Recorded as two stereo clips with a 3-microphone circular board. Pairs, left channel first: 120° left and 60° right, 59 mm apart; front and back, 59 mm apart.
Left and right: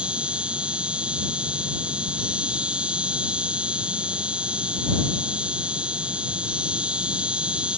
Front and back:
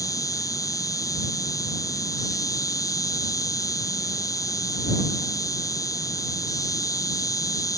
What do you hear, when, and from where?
0.0 s an insect: 10° left